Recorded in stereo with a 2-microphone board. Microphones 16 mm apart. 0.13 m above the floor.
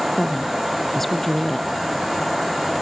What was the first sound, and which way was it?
A woman speaking, 20° left (ahead or behind).